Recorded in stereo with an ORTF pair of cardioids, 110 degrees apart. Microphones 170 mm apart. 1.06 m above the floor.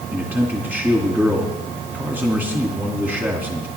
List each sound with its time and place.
0.1 s a man speaking: 10° right, 2 m